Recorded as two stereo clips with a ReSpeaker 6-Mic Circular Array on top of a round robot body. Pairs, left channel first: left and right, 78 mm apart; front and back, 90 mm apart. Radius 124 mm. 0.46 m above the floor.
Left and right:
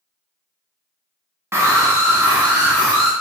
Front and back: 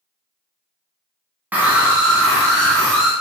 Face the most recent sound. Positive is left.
turn(degrees=-80)